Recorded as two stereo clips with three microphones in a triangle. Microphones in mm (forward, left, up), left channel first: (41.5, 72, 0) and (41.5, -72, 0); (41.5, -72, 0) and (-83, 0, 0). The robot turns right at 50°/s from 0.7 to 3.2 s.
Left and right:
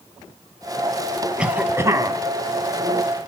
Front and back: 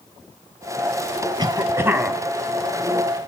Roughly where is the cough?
Behind.